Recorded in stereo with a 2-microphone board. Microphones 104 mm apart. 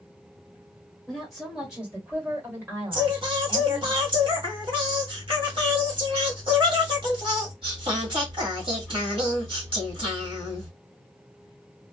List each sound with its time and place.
1.1 s a woman speaking: 5° left (ahead or behind), 1.8 m; by 3.9 s 40° right (ahead or behind), 2 m
2.9 s singing: 55° right (ahead or behind), 1.5 m